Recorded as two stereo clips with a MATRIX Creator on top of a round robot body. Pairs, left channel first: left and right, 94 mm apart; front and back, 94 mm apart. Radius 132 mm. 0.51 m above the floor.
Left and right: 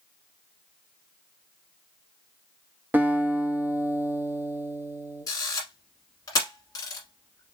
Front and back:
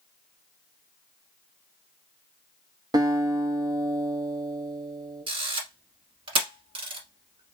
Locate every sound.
2.9 s a guitar: 155° right, 1.0 m
5.3 s a camera shutter: 145° left, 1.2 m